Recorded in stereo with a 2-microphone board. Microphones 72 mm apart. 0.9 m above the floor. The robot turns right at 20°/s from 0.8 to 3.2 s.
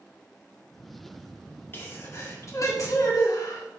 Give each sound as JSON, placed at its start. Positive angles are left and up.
{"t": 1.7, "sound": "a sneeze", "side_deg": 30, "distance_m": 1.8}